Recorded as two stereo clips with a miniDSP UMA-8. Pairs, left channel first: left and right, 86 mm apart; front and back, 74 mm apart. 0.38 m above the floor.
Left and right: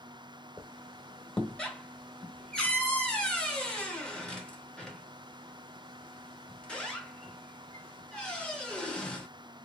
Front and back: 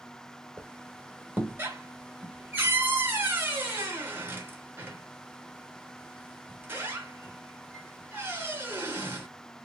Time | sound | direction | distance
0.6 | a squeak | 160° left | 0.8 m